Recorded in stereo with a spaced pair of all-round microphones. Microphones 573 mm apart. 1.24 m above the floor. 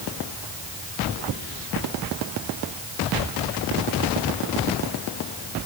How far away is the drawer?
I don't hear a drawer.